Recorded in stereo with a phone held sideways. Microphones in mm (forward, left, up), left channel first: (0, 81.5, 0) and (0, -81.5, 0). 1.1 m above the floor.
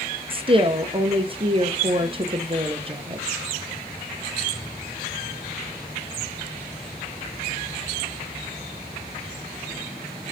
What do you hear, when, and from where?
0.3 s a woman speaking: 35° right (ahead or behind), 0.6 m